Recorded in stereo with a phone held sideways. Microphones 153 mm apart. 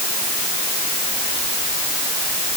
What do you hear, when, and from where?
Only background noise.